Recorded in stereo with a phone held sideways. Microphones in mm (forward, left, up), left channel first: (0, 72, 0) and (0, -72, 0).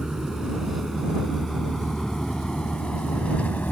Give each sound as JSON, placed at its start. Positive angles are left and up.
{"t": 0.0, "sound": "a vehicle", "side_deg": -5}